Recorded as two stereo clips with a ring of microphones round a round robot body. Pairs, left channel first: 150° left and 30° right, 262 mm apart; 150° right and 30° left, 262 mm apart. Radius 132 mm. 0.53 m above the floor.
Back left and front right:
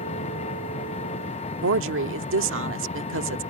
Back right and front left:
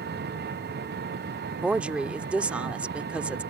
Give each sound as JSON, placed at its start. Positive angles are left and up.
{"t": 0.0, "sound": "an engine running", "azimuth_deg": 85}
{"t": 1.6, "sound": "a woman speaking", "azimuth_deg": -55}